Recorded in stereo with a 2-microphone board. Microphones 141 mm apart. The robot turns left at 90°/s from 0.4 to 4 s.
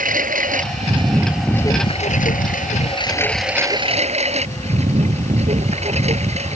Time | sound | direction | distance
0.0 | a lawn mower | 90° right | ?